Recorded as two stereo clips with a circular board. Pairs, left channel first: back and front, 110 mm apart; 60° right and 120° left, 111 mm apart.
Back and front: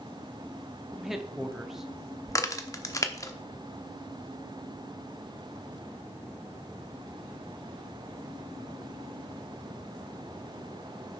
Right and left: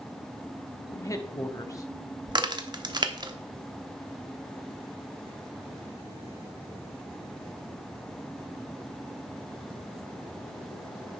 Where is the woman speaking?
85° right, 0.9 m.